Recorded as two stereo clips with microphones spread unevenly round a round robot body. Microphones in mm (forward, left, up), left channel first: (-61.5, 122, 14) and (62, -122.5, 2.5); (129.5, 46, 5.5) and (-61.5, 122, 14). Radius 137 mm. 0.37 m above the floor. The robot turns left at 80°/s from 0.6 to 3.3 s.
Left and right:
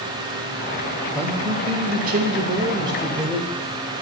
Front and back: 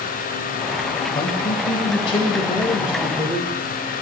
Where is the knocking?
No knocking in this recording.